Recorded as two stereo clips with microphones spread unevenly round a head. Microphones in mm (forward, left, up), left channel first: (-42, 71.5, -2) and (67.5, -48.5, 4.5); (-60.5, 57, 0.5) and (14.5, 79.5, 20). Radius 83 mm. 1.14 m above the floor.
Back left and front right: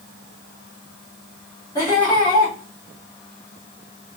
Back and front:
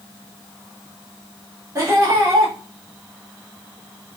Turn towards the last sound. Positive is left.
turn(degrees=65)